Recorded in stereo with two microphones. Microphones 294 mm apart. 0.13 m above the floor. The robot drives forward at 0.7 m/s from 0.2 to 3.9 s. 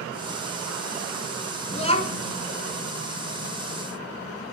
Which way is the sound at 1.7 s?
20° left (ahead or behind).